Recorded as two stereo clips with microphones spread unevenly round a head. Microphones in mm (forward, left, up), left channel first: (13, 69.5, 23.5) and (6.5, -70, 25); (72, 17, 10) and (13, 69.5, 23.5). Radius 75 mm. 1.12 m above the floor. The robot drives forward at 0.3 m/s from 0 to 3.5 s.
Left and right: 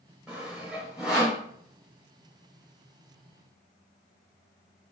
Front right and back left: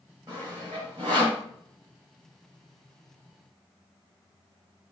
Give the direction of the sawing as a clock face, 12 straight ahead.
6 o'clock.